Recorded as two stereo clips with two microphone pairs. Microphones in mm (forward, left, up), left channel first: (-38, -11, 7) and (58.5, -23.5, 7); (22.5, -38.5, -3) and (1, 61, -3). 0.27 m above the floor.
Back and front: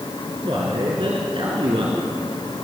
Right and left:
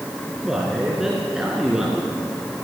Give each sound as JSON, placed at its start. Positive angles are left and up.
{"t": 0.4, "sound": "a man speaking", "azimuth_deg": 20, "distance_m": 4.5}